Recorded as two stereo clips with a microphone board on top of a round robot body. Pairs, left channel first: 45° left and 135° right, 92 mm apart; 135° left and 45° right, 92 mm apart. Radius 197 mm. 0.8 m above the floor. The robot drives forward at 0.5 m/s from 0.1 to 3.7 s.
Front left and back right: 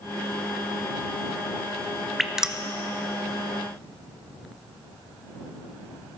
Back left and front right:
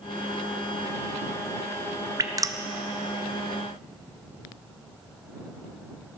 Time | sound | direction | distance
2.2 | dripping | 50° right | 1.1 m